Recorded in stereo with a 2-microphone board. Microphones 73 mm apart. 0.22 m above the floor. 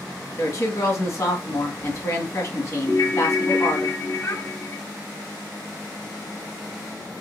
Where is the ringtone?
45° left (ahead or behind), 1.2 m.